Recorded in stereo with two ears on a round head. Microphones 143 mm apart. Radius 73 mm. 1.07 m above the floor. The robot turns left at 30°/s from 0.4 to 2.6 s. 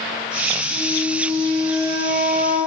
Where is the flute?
35° left, 5 m; by 2.6 s 20° right, 5 m.